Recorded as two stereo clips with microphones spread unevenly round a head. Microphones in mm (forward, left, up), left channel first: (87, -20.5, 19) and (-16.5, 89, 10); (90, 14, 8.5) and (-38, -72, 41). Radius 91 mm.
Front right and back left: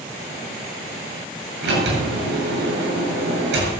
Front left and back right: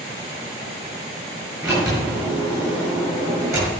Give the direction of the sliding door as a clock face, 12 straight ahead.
7 o'clock.